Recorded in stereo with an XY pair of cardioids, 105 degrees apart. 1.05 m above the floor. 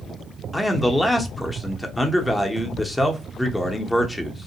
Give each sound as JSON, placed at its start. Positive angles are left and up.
{"t": 0.5, "sound": "a man speaking", "azimuth_deg": 10, "distance_m": 0.7}